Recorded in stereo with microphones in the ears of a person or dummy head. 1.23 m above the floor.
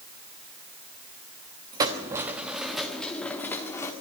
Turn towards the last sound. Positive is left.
turn(degrees=15)  # may be behind; listen again after turning